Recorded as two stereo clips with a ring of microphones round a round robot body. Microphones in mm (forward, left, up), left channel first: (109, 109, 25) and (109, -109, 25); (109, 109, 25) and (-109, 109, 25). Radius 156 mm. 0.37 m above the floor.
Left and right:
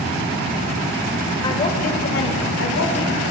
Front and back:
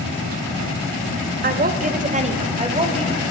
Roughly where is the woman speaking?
Behind left.